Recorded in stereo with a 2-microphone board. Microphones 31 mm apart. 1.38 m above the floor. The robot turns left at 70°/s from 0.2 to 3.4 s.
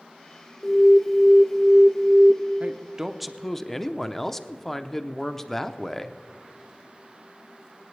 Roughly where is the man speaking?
Behind right.